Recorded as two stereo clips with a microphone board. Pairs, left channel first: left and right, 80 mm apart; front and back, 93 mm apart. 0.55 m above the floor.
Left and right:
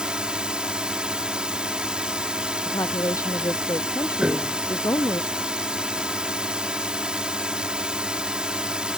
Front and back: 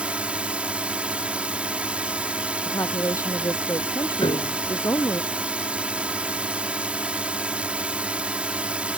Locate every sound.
0.0 s a drone: 140° right
2.6 s a woman speaking: 50° left
4.2 s a piano: 10° right